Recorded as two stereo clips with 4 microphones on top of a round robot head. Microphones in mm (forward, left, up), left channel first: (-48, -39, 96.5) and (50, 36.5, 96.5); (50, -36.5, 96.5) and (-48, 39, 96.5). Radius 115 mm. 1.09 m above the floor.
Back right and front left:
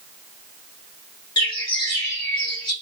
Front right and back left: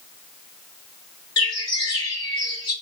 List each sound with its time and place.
1.4 s a bird: 90° right, 1.4 m